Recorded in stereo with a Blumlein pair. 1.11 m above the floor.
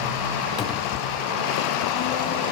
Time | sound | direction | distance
0.6 | a cupboard door | 30° left | ?